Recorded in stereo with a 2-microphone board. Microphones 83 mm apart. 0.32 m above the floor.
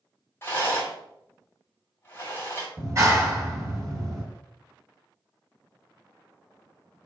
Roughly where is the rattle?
Left.